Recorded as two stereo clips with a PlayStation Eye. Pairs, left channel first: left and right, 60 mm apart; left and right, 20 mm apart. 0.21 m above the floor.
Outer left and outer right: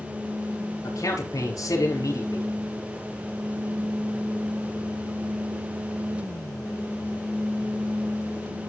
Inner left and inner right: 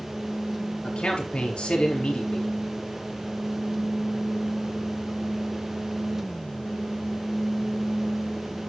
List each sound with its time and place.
0.8 s a man speaking: 70° left (ahead or behind), 4 m